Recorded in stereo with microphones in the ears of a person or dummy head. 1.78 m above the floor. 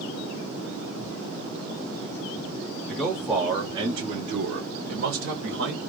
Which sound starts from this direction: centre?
A man speaking, at 2.9 s.